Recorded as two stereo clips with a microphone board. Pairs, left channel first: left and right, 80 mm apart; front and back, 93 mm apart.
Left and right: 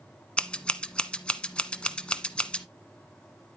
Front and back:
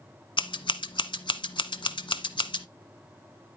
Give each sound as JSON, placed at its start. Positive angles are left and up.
{"t": 0.4, "sound": "scissors", "azimuth_deg": 15, "distance_m": 1.0}